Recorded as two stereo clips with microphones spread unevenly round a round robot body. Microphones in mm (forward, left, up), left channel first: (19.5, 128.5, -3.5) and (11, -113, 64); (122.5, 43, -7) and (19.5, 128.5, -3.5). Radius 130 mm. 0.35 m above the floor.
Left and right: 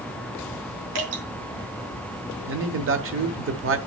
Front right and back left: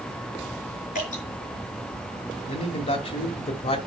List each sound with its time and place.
0.9 s dripping: 95° right, 5 m
2.5 s a man speaking: 60° right, 1.4 m